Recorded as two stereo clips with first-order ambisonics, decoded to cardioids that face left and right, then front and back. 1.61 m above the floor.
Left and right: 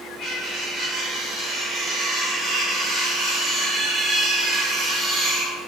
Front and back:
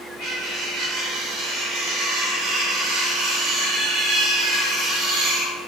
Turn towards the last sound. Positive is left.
turn(degrees=-170)